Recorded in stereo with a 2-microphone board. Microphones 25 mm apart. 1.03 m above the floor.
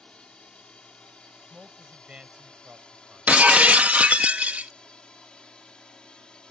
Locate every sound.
0.0 s a drone: 40° left (ahead or behind); by 6.5 s 35° left (ahead or behind)
1.5 s a man speaking: 55° right (ahead or behind)
3.3 s breaking glass: 75° right (ahead or behind)